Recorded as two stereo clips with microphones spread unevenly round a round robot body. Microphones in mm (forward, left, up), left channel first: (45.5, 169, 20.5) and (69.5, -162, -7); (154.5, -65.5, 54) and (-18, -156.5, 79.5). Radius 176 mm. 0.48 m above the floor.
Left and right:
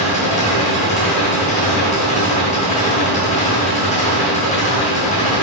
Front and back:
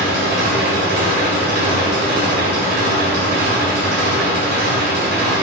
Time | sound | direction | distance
0.0 | an engine running | 165° left | 2 m